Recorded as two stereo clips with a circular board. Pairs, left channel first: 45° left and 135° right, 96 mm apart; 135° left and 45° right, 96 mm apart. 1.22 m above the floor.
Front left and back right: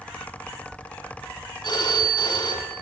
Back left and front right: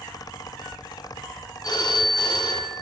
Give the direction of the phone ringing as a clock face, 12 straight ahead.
9 o'clock.